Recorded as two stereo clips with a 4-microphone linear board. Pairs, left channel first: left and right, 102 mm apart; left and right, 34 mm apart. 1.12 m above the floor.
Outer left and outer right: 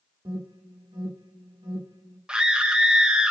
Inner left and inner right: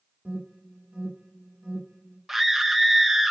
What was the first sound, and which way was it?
An alarm, 55° right (ahead or behind).